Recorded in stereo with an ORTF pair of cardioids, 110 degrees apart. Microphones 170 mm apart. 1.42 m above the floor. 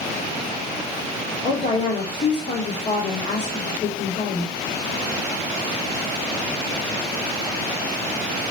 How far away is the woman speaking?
About 2.5 m.